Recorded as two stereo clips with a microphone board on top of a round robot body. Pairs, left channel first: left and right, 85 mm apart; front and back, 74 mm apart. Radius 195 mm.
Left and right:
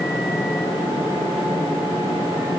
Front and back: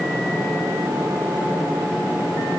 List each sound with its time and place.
Only background noise.